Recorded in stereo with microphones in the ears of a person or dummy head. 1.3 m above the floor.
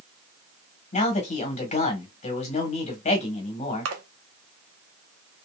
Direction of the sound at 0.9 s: 40° left (ahead or behind).